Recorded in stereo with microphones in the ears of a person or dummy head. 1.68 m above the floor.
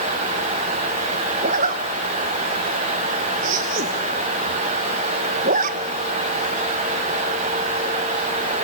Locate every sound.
1.4 s a zipper: 50° right (ahead or behind), 1.3 m